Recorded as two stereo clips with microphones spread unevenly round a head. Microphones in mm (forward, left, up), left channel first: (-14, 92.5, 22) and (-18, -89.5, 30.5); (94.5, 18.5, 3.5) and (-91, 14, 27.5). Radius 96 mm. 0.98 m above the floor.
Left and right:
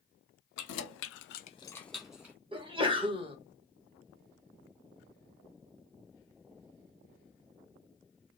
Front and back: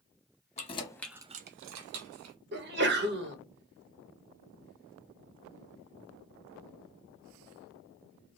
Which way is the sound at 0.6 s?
60° left.